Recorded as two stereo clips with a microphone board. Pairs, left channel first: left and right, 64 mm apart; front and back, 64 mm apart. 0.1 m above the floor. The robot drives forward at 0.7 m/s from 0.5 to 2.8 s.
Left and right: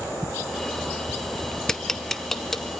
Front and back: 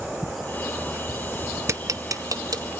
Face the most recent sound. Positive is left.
turn(degrees=175)